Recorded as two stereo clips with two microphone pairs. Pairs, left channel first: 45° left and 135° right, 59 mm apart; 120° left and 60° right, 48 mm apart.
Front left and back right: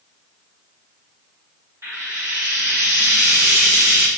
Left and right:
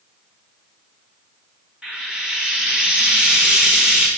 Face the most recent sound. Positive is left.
turn(degrees=-125)